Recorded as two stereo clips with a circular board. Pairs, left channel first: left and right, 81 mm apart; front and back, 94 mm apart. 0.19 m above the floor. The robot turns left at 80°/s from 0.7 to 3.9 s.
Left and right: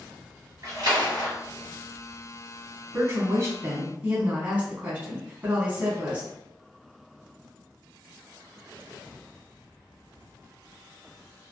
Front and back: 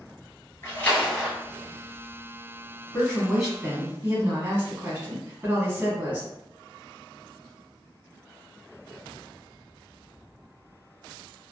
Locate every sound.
0.6 s a splash: 55° right, 1.6 m; by 1.3 s 105° right, 1.6 m
2.9 s a woman speaking: 60° right, 1.3 m; by 6.3 s 140° right, 1.3 m